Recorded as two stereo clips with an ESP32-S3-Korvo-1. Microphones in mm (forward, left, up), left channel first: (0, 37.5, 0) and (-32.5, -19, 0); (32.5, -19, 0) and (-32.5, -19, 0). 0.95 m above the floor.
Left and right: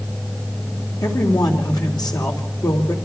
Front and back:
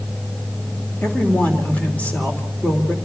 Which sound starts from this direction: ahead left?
A man speaking, at 1.0 s.